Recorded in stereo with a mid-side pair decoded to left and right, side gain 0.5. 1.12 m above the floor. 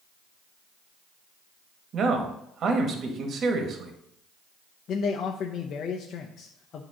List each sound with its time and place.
1.9 s a man speaking: 50° right, 1.4 m
4.9 s a man speaking: 55° left, 0.7 m